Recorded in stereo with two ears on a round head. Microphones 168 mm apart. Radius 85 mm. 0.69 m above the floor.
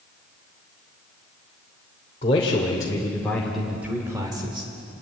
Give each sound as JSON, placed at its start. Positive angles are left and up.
{"t": 2.2, "sound": "a man speaking", "side_deg": 35, "distance_m": 3.0}